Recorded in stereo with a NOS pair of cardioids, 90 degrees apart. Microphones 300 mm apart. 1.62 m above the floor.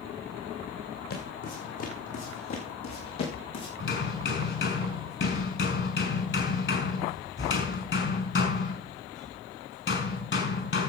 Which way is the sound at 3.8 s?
40° left.